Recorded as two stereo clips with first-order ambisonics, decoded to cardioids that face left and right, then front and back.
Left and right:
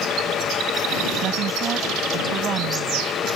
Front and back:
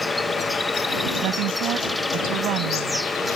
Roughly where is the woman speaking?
Behind right.